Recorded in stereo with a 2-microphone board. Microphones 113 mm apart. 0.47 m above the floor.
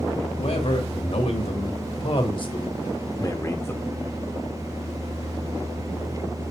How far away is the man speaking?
About 2 m.